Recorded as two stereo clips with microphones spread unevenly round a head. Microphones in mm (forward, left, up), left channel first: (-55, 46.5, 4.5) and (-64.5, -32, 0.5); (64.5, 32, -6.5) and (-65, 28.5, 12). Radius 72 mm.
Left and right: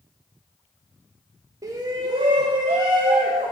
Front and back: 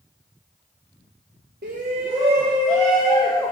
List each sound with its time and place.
1.6 s a shout: 140° right, 0.8 m; by 3.5 s 80° right, 1.3 m